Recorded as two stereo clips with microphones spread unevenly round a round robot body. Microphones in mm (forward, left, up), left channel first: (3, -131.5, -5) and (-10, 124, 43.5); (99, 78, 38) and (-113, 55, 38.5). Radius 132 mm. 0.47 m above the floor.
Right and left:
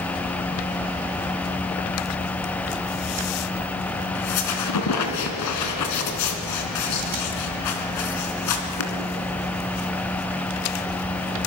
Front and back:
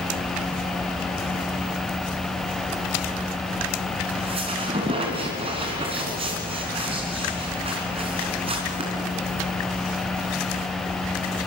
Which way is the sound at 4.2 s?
105° right.